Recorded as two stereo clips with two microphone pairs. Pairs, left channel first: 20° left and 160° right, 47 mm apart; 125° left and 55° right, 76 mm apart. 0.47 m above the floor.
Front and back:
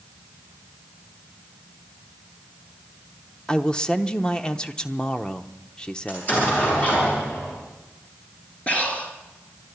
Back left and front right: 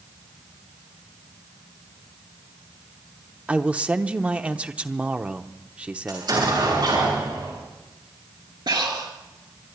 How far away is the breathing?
About 2.5 m.